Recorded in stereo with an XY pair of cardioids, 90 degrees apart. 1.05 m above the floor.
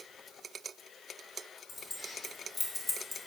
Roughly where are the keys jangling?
Ahead left.